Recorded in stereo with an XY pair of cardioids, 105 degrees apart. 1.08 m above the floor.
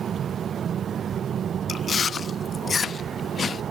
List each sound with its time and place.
1.7 s chewing: 45° left, 0.7 m